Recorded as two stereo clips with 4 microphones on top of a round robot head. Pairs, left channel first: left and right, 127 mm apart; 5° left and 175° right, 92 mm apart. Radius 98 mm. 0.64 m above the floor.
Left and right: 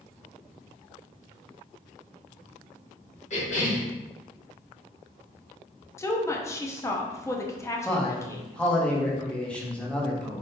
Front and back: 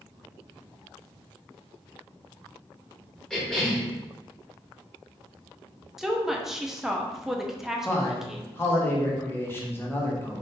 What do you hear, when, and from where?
3.3 s a cough: 90° left, 1.7 m
6.0 s a woman speaking: 105° left, 0.6 m
7.8 s a man speaking: 20° left, 0.9 m